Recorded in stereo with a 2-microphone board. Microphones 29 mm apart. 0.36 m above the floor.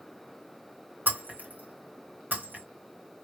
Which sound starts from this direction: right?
Breaking glass, at 1.1 s.